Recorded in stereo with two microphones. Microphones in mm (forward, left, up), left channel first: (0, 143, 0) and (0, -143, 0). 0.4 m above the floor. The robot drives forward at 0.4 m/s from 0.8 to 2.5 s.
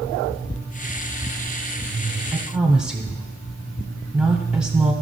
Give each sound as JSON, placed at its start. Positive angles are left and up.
{"t": 2.3, "sound": "a woman speaking", "side_deg": -5, "distance_m": 0.8}